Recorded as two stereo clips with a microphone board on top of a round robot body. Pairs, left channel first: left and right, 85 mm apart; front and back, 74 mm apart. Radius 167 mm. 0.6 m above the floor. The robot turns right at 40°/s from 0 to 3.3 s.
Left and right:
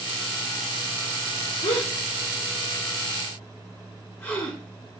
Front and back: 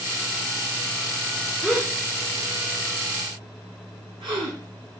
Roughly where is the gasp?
Left.